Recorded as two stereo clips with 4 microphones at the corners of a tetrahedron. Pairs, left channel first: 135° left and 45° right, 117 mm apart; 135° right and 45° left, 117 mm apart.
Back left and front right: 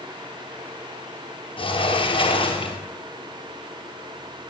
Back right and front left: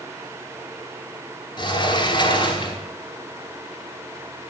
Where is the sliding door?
175° left, 0.9 m.